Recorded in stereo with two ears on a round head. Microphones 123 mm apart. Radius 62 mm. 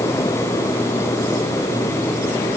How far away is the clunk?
I don't hear a clunk.